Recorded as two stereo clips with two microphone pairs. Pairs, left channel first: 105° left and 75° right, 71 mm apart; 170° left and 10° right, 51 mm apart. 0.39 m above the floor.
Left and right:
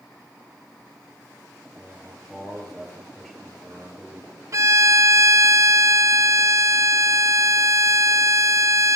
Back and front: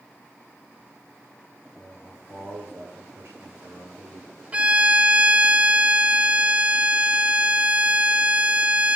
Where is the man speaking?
15° left, 8 m.